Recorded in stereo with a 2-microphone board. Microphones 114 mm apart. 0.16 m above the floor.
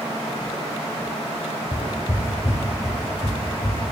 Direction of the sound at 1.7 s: 45° left (ahead or behind).